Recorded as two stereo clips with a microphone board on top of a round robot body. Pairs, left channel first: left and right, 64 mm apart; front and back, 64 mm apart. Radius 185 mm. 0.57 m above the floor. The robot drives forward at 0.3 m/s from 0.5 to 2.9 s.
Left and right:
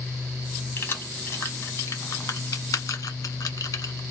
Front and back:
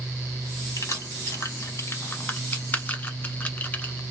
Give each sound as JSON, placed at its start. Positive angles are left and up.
{"t": 0.8, "sound": "keys jangling", "azimuth_deg": 40, "distance_m": 1.3}